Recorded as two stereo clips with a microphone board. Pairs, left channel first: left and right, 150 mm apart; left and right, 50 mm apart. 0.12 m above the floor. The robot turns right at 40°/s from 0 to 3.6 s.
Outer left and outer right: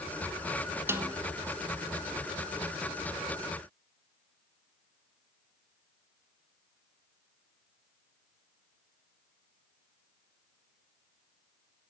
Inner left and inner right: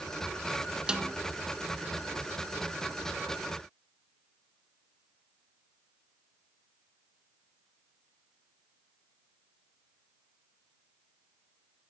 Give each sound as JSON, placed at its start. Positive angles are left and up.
{"t": 0.9, "sound": "a snare drum", "side_deg": -15, "distance_m": 0.9}